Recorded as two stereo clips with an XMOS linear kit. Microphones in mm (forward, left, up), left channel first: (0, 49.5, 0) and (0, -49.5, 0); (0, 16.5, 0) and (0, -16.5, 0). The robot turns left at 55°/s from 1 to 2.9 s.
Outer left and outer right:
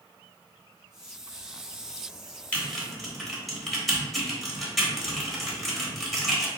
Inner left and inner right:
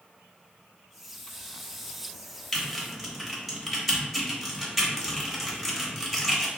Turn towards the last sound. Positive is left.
turn(degrees=0)  # may be behind; listen again after turning